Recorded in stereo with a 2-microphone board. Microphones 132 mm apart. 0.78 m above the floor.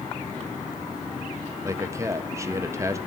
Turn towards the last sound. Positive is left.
turn(degrees=-20)  # may be behind; listen again after turning